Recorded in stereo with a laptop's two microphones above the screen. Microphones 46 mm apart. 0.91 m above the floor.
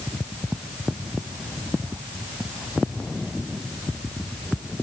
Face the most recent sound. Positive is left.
No sound to turn to.